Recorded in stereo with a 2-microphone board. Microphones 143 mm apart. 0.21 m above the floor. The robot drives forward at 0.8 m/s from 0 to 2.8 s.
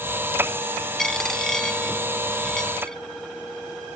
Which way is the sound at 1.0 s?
5° left (ahead or behind).